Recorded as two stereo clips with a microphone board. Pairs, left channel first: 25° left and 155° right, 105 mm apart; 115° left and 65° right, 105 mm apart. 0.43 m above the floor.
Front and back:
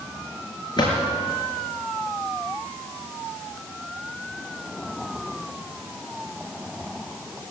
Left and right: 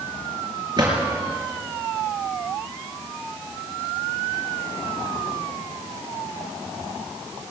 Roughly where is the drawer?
Ahead.